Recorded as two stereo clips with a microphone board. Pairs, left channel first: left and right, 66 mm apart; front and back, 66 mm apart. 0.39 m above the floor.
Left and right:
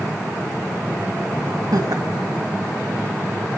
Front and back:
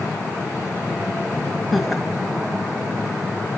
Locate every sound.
1.7 s laughter: 90° right, 1.9 m